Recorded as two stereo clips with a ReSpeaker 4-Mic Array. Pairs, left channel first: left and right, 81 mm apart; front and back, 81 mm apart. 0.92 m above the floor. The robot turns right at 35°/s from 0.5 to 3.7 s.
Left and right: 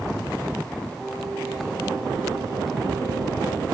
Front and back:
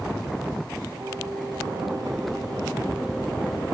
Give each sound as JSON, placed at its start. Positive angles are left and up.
{"t": 1.0, "sound": "singing", "azimuth_deg": 165, "distance_m": 6.0}